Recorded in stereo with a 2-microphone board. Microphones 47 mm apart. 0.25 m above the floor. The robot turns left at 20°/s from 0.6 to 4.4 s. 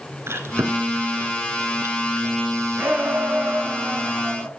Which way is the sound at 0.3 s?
60° right (ahead or behind).